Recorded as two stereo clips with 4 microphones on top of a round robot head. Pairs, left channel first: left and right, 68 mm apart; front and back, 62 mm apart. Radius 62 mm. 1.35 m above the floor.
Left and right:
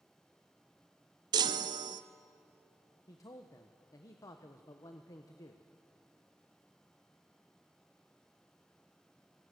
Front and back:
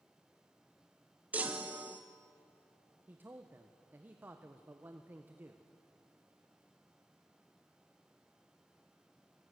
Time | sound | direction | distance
1.3 | a chime | 105° right | 0.7 m
3.1 | a man speaking | 120° left | 1.2 m